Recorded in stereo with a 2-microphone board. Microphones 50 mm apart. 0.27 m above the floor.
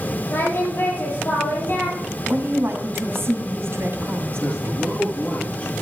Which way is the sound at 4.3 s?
25° left (ahead or behind).